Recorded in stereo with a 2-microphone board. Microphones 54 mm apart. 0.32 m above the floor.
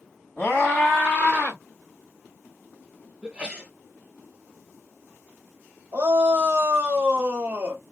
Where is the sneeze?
15° right (ahead or behind), 1.1 m.